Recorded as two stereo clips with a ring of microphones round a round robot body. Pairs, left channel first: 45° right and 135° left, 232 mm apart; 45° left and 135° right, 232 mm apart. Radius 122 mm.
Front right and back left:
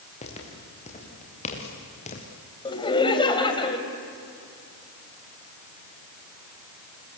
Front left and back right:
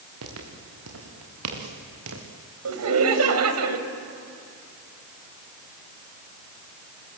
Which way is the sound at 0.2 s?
110° right.